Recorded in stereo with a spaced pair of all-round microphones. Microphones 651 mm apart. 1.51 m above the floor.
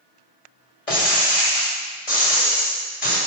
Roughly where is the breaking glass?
Left.